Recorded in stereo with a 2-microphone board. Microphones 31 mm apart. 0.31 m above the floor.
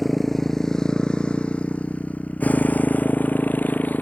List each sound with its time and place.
0.0 s a motorcycle: 5° left (ahead or behind); by 4.0 s 85° left